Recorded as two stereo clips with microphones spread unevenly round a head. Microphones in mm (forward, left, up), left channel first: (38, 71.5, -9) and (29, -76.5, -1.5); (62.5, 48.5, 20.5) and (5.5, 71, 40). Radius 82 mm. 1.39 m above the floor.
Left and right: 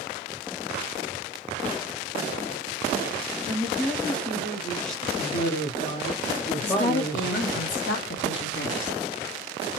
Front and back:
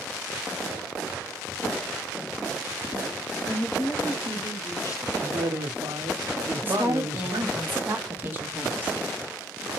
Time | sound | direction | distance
3.5 | a woman speaking | 10° left | 0.9 m
5.2 | a man speaking | 130° left | 0.8 m
6.6 | a woman speaking | 105° left | 1.0 m